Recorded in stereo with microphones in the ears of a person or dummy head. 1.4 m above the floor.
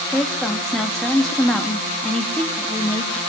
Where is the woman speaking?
10° left (ahead or behind), 2.5 m.